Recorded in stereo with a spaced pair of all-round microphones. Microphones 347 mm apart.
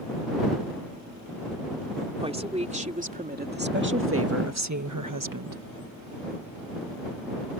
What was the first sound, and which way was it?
A woman speaking, 15° right (ahead or behind).